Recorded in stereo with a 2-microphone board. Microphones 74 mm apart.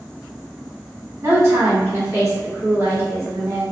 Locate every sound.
1.2 s a woman speaking: 45° right (ahead or behind), 1.7 m